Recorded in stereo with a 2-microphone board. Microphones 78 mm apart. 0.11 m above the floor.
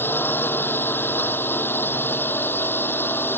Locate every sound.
0.0 s a drone: 30° left (ahead or behind)